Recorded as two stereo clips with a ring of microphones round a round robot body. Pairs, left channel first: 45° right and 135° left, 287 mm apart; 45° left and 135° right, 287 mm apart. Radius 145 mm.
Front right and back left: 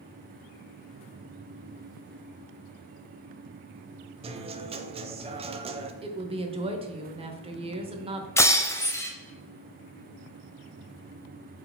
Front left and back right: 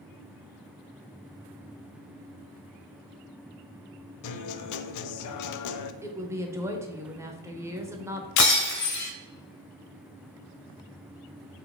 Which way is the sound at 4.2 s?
65° left.